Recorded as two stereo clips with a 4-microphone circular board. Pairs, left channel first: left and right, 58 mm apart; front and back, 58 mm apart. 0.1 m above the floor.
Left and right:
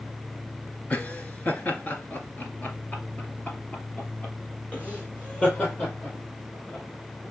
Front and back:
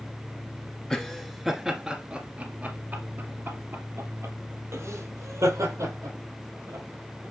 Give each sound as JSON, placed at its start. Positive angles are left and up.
{"t": 0.9, "sound": "laughter", "azimuth_deg": 65, "distance_m": 1.6}